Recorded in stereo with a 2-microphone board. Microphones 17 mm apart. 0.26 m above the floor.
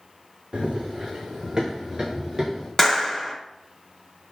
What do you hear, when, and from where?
0.5 s running footsteps: 75° right (ahead or behind), 0.8 m; by 2.7 s 30° right (ahead or behind), 2 m
2.8 s a clap: 15° left (ahead or behind), 0.8 m